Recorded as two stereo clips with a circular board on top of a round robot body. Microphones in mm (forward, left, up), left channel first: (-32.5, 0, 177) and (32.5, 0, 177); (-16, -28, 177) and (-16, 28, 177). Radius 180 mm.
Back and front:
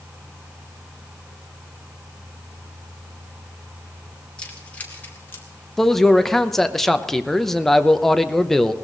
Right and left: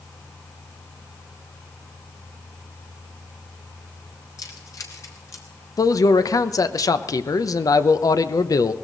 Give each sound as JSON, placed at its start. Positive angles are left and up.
{"t": 4.4, "sound": "keys jangling", "azimuth_deg": -105, "distance_m": 2.5}
{"t": 5.8, "sound": "a man speaking", "azimuth_deg": -95, "distance_m": 0.9}